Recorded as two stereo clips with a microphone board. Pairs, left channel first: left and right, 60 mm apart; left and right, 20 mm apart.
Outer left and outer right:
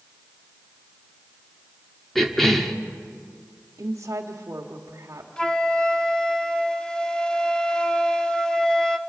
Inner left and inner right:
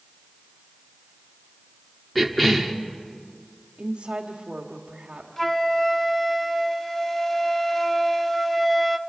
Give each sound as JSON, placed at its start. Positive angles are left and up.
{"t": 2.1, "sound": "a cough", "side_deg": 5, "distance_m": 1.0}
{"t": 3.8, "sound": "a woman speaking", "side_deg": -50, "distance_m": 1.5}
{"t": 5.4, "sound": "a flute", "side_deg": 15, "distance_m": 1.0}